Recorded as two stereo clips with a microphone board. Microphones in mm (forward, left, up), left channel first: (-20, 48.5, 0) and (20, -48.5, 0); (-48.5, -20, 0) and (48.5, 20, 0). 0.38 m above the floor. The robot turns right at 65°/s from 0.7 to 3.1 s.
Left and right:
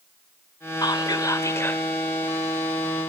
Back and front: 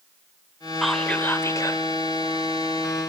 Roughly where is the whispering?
Left.